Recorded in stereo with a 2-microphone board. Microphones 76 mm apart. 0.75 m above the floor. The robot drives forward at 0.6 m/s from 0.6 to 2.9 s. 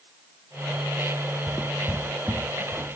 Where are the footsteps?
10° left (ahead or behind), 0.8 m; by 3.0 s 5° right (ahead or behind), 1.9 m.